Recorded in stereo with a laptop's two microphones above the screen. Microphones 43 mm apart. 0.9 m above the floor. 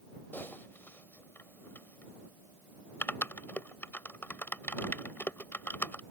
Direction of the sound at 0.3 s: 55° left (ahead or behind).